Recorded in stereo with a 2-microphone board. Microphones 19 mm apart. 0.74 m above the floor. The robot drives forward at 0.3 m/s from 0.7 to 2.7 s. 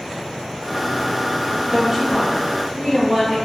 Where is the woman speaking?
20° right (ahead or behind), 0.9 m.